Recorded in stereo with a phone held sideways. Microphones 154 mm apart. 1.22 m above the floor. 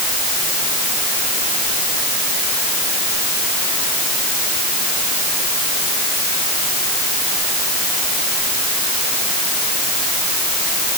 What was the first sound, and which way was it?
Only background noise.